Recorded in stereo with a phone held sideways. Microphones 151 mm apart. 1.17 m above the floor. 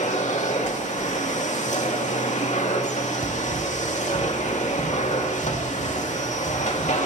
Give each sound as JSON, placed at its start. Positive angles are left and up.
{"t": 0.0, "sound": "a machine running", "side_deg": 55, "distance_m": 1.7}
{"t": 3.2, "sound": "running footsteps", "side_deg": -40, "distance_m": 1.8}